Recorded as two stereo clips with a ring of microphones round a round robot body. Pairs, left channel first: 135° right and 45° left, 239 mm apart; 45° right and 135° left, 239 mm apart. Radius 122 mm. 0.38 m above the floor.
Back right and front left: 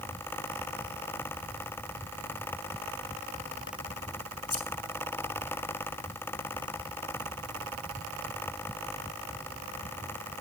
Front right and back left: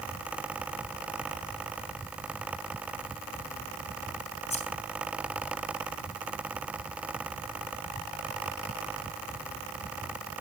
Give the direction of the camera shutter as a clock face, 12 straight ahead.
I don't hear a camera shutter.